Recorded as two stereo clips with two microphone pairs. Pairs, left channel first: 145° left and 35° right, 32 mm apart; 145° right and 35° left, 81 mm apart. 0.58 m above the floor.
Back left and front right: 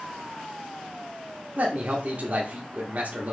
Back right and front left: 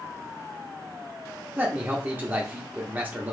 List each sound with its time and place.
1.6 s a man speaking: 30° right, 1.0 m